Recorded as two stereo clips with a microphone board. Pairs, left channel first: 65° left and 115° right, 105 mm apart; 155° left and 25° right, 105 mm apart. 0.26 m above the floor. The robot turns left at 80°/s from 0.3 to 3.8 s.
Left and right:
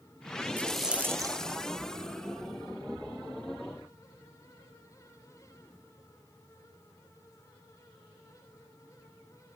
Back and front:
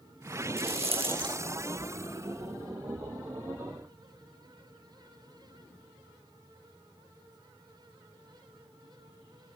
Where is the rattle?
5° right, 0.6 m; by 1.4 s 75° right, 0.6 m.